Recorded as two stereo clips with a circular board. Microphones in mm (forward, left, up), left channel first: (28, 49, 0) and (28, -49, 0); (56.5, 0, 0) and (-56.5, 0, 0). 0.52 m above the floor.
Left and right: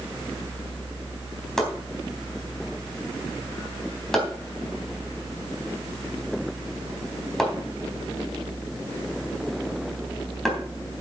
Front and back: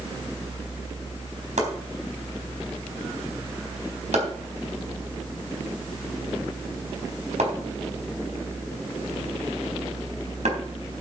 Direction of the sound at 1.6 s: 175° left.